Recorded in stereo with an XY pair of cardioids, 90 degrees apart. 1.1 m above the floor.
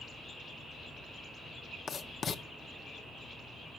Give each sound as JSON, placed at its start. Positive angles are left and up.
{"t": 1.9, "sound": "writing", "azimuth_deg": 55, "distance_m": 0.7}